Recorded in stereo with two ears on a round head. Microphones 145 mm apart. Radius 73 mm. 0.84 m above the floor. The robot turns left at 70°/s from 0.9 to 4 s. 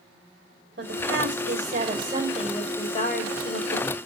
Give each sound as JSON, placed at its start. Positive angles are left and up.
{"t": 0.8, "sound": "a woman speaking", "azimuth_deg": -70, "distance_m": 3.5}